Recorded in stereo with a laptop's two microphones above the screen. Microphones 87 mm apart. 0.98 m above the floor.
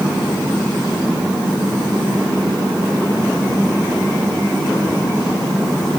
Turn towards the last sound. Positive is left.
No sound to turn to.